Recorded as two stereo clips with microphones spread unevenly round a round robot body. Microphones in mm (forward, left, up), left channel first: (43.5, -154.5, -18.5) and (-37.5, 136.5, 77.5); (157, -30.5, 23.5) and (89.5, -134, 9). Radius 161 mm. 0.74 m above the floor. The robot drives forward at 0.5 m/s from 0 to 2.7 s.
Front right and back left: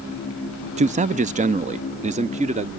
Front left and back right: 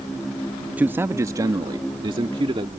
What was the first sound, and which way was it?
A man speaking, 170° right.